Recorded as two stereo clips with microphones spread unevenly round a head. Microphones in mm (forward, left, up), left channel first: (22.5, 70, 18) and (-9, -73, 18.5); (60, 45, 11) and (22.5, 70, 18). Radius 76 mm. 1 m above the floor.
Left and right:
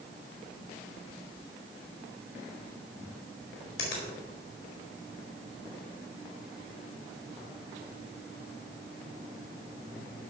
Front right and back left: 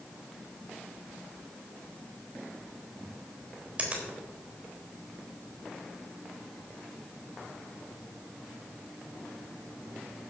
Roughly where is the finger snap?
Left.